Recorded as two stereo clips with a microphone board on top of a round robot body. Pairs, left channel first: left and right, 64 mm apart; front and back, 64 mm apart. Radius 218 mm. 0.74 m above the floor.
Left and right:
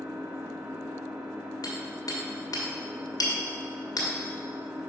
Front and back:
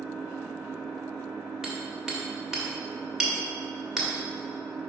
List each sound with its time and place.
0.0 s an engine running: 115° right, 1.9 m
1.6 s hammering: 95° left, 1.6 m